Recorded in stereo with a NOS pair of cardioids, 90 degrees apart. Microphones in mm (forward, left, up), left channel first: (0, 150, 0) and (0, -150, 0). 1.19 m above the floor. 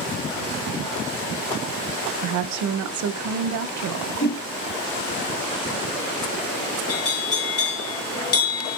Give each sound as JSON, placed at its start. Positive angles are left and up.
{"t": 2.2, "sound": "a woman speaking", "azimuth_deg": -65, "distance_m": 0.7}
{"t": 4.2, "sound": "a whoosh", "azimuth_deg": 30, "distance_m": 1.6}
{"t": 6.9, "sound": "a bell", "azimuth_deg": 50, "distance_m": 2.0}